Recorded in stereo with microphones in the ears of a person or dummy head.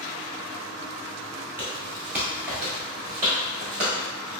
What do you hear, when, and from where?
1.6 s footsteps: 10° right (ahead or behind), 1.6 m